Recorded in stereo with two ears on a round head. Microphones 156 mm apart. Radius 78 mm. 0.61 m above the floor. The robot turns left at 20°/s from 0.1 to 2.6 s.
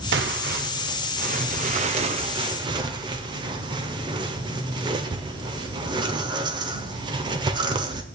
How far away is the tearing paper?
About 1.3 m.